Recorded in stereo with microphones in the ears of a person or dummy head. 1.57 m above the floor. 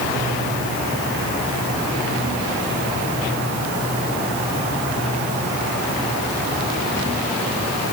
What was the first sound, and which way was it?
Only background noise.